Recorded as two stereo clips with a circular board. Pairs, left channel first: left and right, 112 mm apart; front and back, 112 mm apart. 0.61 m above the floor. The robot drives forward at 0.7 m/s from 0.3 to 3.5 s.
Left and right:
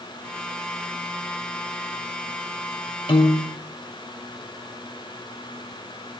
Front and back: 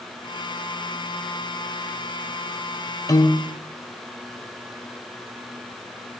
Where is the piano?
55° left, 1.1 m; by 3.6 s 70° left, 1.0 m.